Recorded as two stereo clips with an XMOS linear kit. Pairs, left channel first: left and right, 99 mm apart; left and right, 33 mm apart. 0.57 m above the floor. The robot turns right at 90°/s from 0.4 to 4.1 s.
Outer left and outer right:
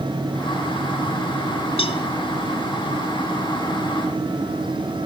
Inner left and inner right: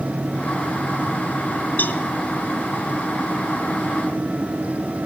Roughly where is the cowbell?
Left.